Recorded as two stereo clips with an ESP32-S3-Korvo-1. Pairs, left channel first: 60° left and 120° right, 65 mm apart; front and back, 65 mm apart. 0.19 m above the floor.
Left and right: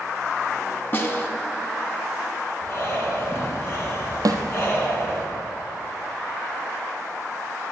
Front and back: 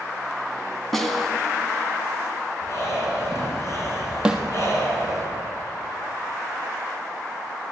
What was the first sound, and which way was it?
A snare drum, 85° left.